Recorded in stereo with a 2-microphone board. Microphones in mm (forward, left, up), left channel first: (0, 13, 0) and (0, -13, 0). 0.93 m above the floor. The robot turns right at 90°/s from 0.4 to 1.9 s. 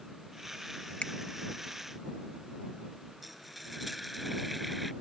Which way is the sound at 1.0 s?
55° left (ahead or behind).